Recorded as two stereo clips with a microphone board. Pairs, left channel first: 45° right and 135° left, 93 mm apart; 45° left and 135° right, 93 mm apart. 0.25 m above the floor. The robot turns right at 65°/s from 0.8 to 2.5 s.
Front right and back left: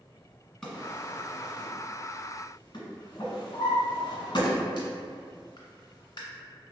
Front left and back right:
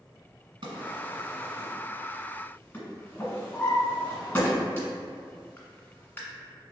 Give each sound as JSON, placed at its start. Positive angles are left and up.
{"t": 0.6, "sound": "a drawer", "azimuth_deg": -130, "distance_m": 1.4}